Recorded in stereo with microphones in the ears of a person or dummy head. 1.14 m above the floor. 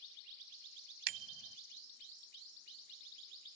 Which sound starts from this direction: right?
A bicycle bell, at 1.1 s.